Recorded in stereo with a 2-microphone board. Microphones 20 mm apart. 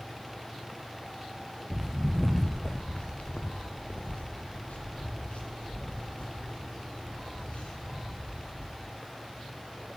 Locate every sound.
1.7 s footsteps: 15° right (ahead or behind), 0.7 m; by 8.8 s 80° left, 4 m